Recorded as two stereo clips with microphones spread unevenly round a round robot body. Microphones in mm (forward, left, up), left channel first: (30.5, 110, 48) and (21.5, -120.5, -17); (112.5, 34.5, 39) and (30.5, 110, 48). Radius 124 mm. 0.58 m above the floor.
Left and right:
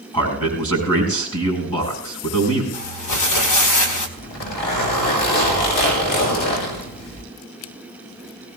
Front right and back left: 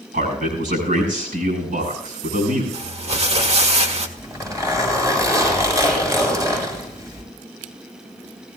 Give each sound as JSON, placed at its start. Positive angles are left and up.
{"t": 0.1, "sound": "a man speaking", "azimuth_deg": 165, "distance_m": 6.5}
{"t": 2.7, "sound": "crumpling", "azimuth_deg": 110, "distance_m": 1.8}
{"t": 4.2, "sound": "a zipper", "azimuth_deg": 75, "distance_m": 6.5}